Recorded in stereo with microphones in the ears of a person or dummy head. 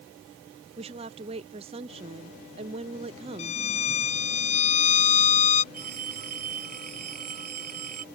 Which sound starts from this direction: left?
A violin, at 3.4 s.